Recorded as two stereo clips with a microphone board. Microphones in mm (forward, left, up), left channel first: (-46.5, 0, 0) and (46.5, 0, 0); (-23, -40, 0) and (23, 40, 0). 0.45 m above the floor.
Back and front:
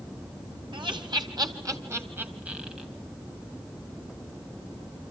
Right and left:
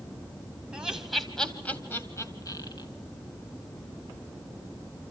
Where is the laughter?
20° right, 2.5 m; by 2.9 s 85° right, 2.5 m.